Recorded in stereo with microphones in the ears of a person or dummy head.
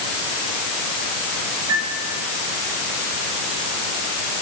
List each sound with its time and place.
1.7 s a piano: 85° right, 8 m